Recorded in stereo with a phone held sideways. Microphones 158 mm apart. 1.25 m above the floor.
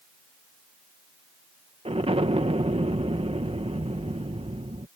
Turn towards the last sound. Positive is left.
turn(degrees=-40)  # may be behind; listen again after turning